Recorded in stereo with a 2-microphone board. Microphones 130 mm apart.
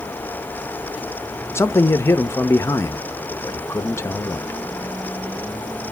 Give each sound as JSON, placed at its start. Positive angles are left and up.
{"t": 1.6, "sound": "a man speaking", "side_deg": 20, "distance_m": 0.8}